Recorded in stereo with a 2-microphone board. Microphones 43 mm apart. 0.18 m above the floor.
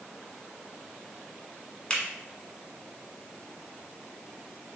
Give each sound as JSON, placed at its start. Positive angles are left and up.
{"t": 1.9, "sound": "a finger snap", "side_deg": 25, "distance_m": 1.3}